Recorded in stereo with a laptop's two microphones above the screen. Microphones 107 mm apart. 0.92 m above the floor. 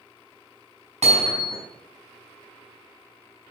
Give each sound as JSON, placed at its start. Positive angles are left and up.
{"t": 1.0, "sound": "hammering", "side_deg": -80, "distance_m": 5.0}